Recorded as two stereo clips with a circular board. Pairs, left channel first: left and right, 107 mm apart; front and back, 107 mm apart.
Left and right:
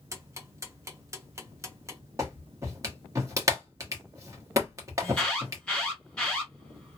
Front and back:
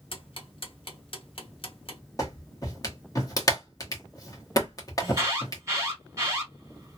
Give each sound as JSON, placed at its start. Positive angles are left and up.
{"t": 0.1, "sound": "ticking", "azimuth_deg": -30, "distance_m": 0.8}
{"t": 2.2, "sound": "a clap", "azimuth_deg": -40, "distance_m": 1.0}
{"t": 5.0, "sound": "an alarm", "azimuth_deg": 160, "distance_m": 1.6}